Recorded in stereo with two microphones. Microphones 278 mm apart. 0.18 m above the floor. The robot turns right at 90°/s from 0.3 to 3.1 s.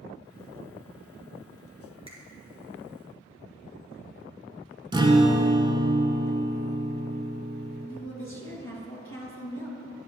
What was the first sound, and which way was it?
A finger snap, 20° right (ahead or behind).